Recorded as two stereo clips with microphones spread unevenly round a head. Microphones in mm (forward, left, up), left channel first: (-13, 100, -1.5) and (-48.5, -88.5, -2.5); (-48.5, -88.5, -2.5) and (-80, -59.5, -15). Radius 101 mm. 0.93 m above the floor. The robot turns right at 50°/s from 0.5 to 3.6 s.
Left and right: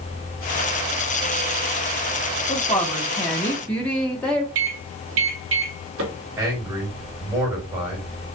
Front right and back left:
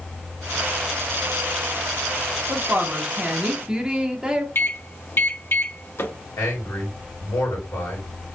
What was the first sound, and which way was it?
A woman speaking, 100° left.